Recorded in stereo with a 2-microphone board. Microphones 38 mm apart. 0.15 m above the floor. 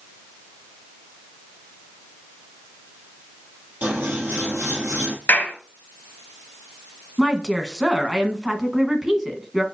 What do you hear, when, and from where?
3.8 s scissors: 45° right (ahead or behind), 2 m
5.3 s a clap: 60° left (ahead or behind), 2 m
7.2 s a woman speaking: 10° right (ahead or behind), 1.2 m